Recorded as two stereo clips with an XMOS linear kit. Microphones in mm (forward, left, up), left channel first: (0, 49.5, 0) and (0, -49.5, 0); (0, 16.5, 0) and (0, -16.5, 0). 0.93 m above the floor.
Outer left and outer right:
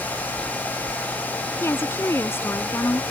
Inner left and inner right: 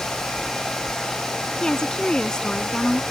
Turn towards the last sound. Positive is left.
turn(degrees=25)  # may be behind; listen again after turning